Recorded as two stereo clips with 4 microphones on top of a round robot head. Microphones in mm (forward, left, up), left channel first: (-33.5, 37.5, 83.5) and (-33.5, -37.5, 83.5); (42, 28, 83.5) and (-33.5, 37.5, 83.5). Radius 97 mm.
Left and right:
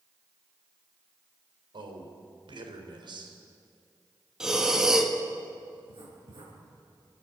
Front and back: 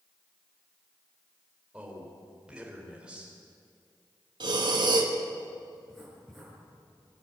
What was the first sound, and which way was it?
A man speaking, 110° right.